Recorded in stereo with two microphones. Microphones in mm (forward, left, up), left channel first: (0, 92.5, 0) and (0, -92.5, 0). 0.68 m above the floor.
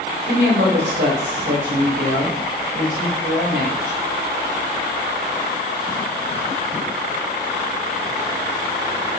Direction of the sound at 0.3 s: 75° right (ahead or behind).